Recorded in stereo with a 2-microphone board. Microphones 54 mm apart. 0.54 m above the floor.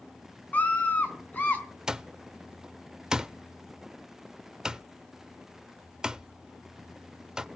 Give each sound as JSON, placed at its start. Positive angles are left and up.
{"t": 0.5, "sound": "a scream", "side_deg": 30, "distance_m": 4.5}
{"t": 1.9, "sound": "an alarm clock", "side_deg": -15, "distance_m": 0.6}